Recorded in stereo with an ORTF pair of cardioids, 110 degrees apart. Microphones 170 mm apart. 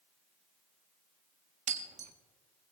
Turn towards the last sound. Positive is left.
turn(degrees=-50)